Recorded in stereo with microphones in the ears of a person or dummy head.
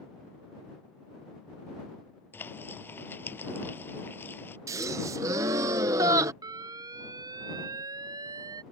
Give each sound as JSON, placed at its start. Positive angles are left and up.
{"t": 2.3, "sound": "frying", "side_deg": 10}
{"t": 4.7, "sound": "a gasp", "side_deg": -15}
{"t": 6.4, "sound": "an alarm", "side_deg": -25}